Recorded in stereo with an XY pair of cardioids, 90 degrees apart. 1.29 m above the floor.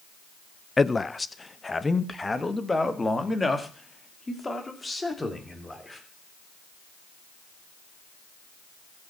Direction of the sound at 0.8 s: 25° left.